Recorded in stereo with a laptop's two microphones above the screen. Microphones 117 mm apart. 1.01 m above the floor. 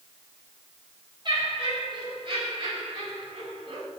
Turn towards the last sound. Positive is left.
turn(degrees=-55)  # may be behind; listen again after turning